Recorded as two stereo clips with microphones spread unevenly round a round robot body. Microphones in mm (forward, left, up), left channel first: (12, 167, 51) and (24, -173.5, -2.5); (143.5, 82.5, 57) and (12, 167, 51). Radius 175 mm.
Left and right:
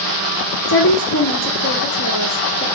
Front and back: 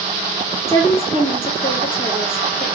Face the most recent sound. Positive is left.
turn(degrees=40)